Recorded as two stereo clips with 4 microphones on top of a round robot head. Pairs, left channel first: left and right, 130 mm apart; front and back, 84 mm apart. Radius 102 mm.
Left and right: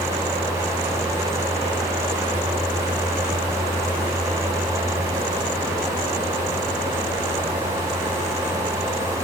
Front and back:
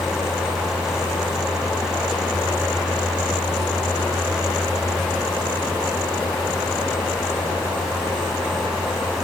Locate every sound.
Only background noise.